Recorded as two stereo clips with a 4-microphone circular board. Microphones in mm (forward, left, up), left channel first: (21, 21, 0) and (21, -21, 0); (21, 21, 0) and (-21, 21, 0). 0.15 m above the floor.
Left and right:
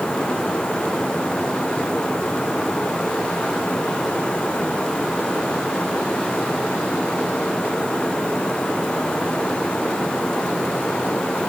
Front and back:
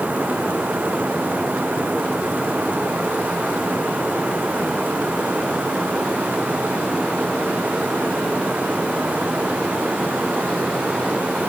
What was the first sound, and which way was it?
Only background noise.